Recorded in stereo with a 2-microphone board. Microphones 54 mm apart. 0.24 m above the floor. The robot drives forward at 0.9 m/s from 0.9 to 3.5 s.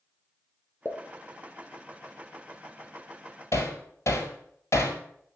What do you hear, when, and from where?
0.8 s a pop: 45° left (ahead or behind), 1.6 m; by 1.0 s 40° left (ahead or behind), 1.6 m
3.5 s hammering: 65° left (ahead or behind), 1.7 m